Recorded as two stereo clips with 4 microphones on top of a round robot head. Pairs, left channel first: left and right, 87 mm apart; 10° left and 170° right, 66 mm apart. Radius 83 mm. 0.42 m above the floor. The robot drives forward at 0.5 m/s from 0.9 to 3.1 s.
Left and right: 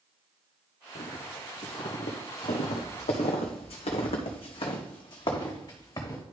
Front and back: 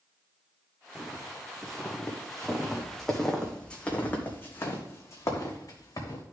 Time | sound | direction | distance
0.9 | footsteps | 105° left | 1.7 m